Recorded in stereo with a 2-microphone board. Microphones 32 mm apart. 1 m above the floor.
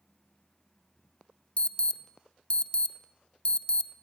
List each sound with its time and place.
1.6 s an alarm: 40° left (ahead or behind), 1.1 m